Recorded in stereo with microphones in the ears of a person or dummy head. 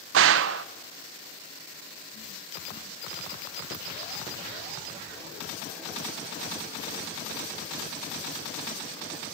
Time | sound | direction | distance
0.1 | a gunshot | 75° right (ahead or behind) | 0.9 m